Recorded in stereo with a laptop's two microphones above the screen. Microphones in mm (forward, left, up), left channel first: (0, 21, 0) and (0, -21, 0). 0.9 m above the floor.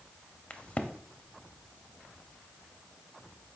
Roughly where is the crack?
Left.